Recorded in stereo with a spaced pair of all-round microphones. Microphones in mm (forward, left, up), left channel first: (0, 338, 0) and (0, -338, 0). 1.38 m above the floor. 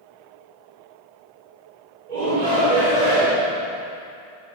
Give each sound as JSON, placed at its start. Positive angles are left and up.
{"t": 2.1, "sound": "a shout", "side_deg": -75, "distance_m": 1.4}